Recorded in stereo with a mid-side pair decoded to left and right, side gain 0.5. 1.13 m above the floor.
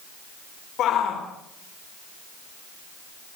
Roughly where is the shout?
Ahead left.